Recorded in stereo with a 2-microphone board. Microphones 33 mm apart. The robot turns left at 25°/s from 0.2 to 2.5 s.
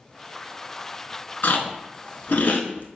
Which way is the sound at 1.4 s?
85° left.